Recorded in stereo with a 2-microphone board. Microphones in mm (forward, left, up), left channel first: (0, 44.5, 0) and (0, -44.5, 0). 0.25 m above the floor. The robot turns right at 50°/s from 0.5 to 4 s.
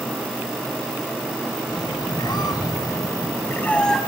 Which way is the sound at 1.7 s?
60° left.